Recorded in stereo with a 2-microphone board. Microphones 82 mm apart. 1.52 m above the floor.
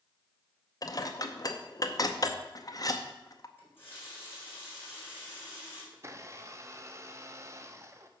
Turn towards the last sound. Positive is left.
turn(degrees=-35)  # may be behind; listen again after turning